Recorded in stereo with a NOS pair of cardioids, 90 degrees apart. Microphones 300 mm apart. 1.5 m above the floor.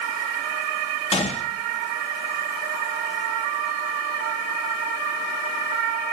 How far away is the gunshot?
About 1.4 m.